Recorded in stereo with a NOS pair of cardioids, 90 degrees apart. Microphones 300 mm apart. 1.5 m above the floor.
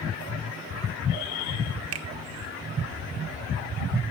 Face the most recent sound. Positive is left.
turn(degrees=-50)